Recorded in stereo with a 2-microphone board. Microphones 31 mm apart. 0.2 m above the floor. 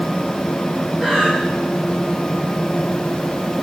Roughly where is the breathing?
Centre.